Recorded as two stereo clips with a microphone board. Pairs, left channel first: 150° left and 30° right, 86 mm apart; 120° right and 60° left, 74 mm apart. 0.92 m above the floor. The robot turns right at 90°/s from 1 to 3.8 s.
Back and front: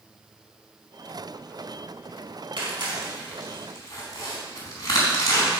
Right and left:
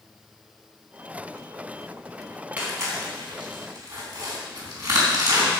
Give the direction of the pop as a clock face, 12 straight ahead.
I don't hear a pop.